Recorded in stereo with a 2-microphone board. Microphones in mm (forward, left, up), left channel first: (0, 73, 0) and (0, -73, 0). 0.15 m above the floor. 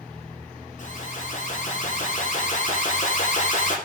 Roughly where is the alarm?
Left.